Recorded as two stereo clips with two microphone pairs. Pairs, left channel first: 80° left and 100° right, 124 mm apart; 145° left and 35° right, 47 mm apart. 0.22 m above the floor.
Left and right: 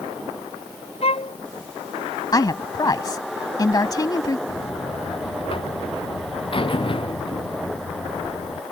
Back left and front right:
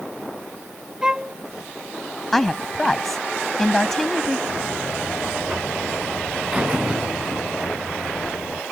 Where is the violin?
40° left.